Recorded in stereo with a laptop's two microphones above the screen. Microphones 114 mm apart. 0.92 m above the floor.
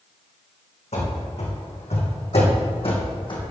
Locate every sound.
0.9 s running footsteps: 75° left (ahead or behind), 3 m; by 3.5 s 45° left (ahead or behind), 2.5 m